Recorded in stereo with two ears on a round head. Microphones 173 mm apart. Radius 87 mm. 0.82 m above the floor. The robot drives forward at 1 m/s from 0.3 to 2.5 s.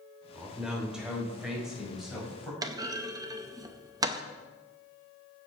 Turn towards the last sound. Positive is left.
turn(degrees=-20)  # may be behind; listen again after turning